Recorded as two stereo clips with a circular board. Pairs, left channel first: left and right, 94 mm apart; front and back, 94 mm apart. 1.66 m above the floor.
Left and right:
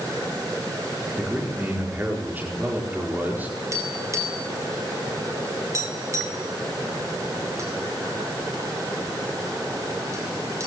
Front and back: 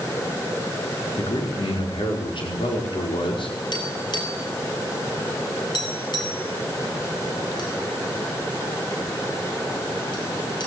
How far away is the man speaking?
About 5 m.